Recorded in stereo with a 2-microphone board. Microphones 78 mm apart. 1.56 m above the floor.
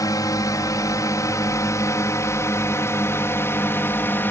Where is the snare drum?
No snare drum in this recording.